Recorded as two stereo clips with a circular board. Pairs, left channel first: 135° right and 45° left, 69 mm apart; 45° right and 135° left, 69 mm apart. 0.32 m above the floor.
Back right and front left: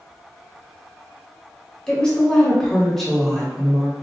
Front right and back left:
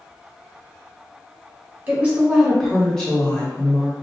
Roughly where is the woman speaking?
Behind.